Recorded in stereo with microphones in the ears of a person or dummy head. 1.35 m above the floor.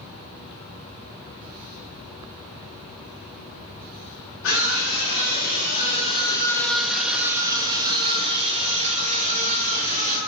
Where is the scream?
80° left, 1.6 m; by 10.2 s 45° right (ahead or behind), 3 m.